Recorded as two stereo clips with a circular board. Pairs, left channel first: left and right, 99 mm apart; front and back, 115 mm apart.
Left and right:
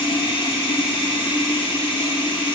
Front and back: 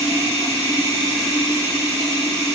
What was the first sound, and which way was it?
Running water, 115° left.